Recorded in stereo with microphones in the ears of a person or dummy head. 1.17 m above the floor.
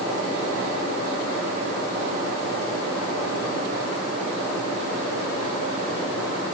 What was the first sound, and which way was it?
Only background noise.